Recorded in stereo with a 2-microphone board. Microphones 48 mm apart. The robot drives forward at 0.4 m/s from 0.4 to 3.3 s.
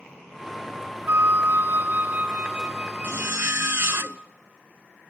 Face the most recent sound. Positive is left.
turn(degrees=-55)  # may be behind; listen again after turning